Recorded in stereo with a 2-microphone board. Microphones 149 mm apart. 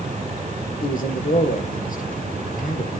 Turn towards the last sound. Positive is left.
turn(degrees=65)  # may be behind; listen again after turning